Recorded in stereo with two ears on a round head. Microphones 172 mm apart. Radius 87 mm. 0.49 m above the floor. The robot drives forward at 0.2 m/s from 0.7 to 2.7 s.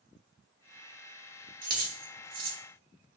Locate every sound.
1.6 s keys jangling: 45° right (ahead or behind), 1.2 m; by 2.6 s 50° right (ahead or behind), 1.1 m